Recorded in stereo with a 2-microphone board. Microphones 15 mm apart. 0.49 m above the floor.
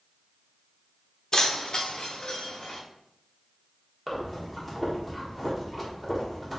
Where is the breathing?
10° left (ahead or behind), 1.2 m.